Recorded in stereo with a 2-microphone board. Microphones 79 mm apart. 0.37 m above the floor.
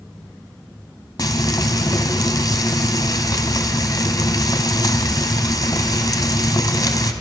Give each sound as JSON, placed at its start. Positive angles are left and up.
{"t": 1.2, "sound": "frying", "side_deg": 55, "distance_m": 1.9}